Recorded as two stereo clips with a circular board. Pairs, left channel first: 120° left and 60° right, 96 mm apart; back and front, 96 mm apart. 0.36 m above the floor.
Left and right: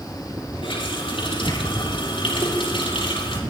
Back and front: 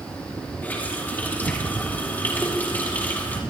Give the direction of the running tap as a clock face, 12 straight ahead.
8 o'clock.